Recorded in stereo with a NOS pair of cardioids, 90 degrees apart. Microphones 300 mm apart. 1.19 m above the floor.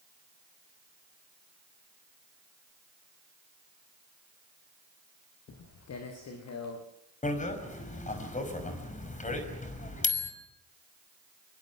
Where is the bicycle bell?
25° left, 5.5 m.